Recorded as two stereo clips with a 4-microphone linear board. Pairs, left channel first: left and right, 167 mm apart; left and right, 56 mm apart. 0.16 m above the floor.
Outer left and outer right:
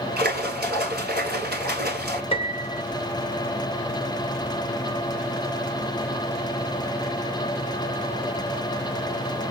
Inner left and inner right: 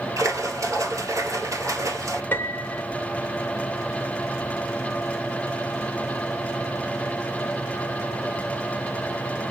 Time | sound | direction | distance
0.2 | a splash | 70° right (ahead or behind) | 1.2 m
2.3 | a piano | 35° left (ahead or behind) | 0.9 m